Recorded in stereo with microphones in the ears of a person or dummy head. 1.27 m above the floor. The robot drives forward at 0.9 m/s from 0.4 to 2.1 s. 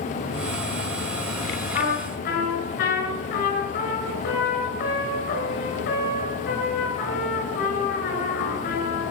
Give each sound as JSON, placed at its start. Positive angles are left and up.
{"t": 1.7, "sound": "a trumpet", "side_deg": 55, "distance_m": 6.5}